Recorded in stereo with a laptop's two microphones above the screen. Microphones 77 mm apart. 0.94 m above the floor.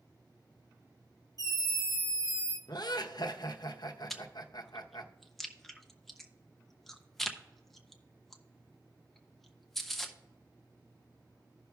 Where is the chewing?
Centre (ahead or behind), 0.6 m.